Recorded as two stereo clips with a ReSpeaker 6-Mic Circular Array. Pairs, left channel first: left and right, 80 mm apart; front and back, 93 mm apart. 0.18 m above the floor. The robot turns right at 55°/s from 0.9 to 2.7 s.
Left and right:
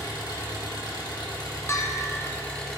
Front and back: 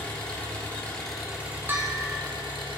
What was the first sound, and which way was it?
An engine running, 75° left.